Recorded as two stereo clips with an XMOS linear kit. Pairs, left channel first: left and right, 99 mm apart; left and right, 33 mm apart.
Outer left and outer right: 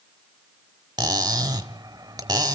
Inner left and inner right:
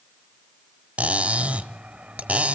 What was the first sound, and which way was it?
Cutlery clinking, 45° right (ahead or behind).